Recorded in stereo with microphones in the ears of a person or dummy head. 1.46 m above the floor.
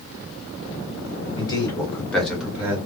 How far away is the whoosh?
No whoosh in this recording.